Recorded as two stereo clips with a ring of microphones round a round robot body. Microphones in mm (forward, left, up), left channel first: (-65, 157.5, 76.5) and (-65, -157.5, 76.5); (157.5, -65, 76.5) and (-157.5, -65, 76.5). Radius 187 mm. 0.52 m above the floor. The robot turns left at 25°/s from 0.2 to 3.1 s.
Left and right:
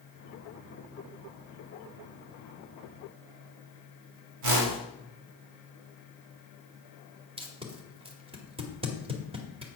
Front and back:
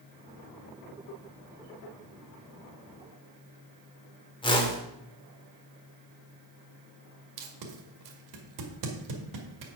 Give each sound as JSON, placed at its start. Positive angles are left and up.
{"t": 4.4, "sound": "a whoosh", "azimuth_deg": -75, "distance_m": 2.5}
{"t": 7.4, "sound": "tape being pulled", "azimuth_deg": -165, "distance_m": 2.0}